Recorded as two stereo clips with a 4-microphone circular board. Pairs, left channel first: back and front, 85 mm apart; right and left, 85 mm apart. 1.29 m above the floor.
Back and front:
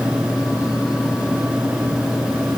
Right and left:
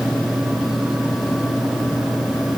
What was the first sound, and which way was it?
Only background noise.